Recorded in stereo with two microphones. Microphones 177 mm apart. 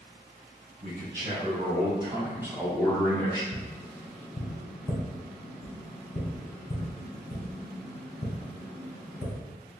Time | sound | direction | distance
0.8 | a man speaking | 50° right (ahead or behind) | 1.6 m
3.5 | tapping | 50° left (ahead or behind) | 1.5 m